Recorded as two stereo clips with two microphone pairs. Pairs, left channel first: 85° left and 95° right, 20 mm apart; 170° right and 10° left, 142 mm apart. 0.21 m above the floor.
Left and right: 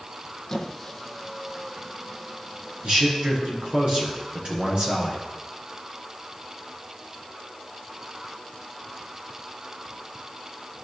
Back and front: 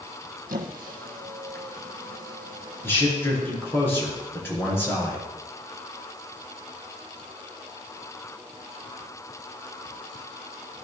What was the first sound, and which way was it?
A squeak, 5° left.